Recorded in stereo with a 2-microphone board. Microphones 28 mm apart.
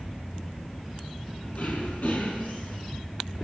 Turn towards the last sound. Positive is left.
turn(degrees=60)  # may be behind; listen again after turning